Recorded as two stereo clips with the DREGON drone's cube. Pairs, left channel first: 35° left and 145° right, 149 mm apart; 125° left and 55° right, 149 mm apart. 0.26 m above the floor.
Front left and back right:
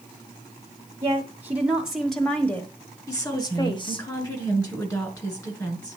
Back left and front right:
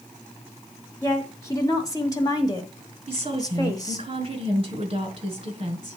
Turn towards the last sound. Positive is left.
turn(degrees=-25)